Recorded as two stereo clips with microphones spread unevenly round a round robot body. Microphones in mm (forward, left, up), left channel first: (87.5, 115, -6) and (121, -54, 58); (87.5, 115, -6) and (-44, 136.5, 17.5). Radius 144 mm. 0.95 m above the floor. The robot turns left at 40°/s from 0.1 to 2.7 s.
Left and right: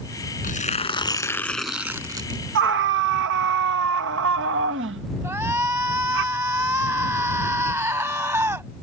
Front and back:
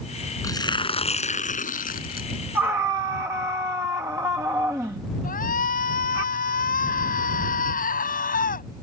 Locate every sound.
0.4 s tearing paper: 55° left; by 2.4 s 20° right
2.5 s a scream: 100° right; by 6.2 s 110° right
5.2 s a shout: 5° right